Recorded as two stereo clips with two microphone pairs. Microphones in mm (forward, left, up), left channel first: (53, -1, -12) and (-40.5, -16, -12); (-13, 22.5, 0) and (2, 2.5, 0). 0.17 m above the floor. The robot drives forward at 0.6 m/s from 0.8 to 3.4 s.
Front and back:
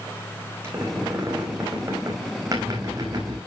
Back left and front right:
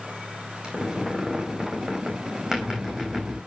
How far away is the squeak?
About 5 m.